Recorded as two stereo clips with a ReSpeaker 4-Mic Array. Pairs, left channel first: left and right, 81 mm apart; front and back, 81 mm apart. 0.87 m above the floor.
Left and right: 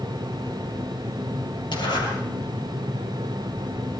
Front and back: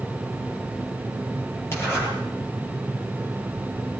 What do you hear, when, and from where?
1.7 s a zipper: 60° left, 8.5 m